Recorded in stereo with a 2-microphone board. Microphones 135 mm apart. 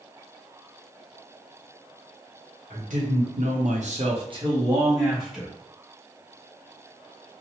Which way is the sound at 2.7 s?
70° right (ahead or behind).